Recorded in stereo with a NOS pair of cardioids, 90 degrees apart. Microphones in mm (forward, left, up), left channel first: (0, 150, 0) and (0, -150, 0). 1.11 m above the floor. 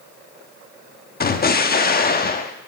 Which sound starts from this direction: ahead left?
An explosion, at 1.2 s.